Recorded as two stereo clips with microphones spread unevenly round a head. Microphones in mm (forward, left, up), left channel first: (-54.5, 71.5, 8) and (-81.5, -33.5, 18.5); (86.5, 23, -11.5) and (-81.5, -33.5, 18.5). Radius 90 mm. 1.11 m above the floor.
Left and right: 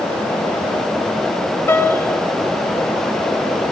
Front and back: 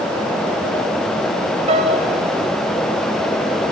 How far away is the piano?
About 1.6 m.